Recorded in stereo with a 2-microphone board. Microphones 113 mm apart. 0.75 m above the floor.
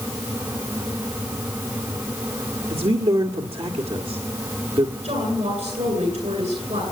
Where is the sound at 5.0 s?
80° right, 9.5 m.